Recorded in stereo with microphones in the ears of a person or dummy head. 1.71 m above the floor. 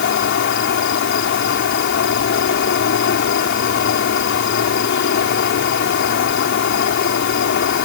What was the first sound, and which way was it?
An insect, 55° left (ahead or behind).